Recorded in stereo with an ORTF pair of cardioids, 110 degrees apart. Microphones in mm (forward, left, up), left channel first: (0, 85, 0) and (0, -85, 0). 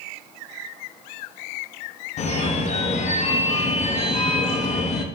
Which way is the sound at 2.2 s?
45° left.